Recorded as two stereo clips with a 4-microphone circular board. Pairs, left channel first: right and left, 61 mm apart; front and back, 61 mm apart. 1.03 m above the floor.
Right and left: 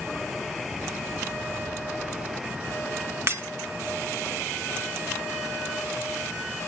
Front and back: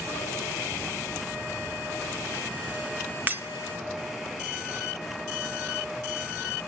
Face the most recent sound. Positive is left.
turn(degrees=125)